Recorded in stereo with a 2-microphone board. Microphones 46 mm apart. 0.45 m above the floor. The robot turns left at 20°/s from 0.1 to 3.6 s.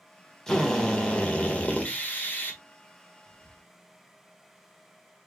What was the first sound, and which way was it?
A drill, 165° left.